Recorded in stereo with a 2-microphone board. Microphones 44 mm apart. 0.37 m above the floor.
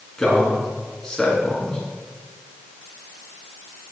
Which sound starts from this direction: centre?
A man speaking, at 0.2 s.